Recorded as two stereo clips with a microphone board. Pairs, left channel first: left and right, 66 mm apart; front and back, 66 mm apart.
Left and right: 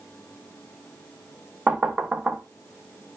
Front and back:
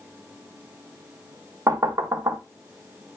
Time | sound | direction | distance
1.7 | knocking | 160° right | 0.5 m